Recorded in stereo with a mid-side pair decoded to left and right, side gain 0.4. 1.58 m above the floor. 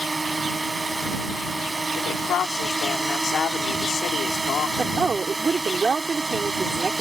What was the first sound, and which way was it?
A drone, 25° right.